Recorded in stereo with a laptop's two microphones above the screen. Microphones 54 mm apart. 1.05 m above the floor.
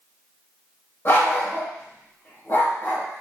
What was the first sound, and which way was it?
A dog barking, 50° left (ahead or behind).